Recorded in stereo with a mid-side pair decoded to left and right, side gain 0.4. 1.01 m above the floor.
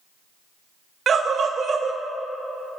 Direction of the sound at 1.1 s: 55° right.